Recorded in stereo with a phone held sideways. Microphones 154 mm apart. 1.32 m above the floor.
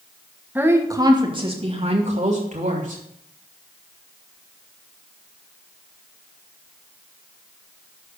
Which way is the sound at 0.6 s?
10° right (ahead or behind).